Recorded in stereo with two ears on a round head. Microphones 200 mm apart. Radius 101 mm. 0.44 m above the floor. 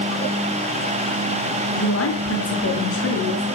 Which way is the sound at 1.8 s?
75° left (ahead or behind).